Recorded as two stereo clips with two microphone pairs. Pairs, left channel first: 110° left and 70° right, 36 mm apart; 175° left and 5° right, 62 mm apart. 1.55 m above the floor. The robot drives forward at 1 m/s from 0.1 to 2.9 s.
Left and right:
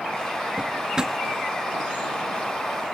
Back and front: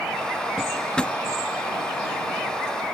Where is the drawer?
90° right; by 1.2 s 135° right.